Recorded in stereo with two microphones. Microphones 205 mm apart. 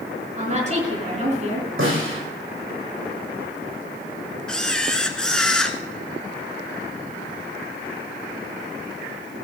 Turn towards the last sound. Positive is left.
turn(degrees=5)  # may be behind; listen again after turning